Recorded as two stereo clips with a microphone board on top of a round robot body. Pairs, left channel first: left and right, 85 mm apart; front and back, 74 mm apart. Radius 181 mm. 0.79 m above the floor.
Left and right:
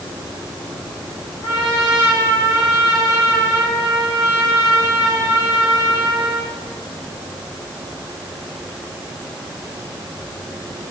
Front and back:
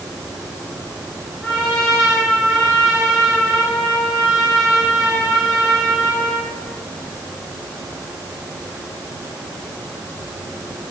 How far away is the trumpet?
About 3 m.